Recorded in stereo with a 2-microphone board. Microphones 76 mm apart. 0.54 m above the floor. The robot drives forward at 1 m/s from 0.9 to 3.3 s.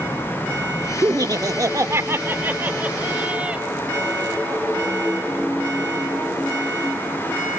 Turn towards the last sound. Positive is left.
turn(degrees=-15)  # may be behind; listen again after turning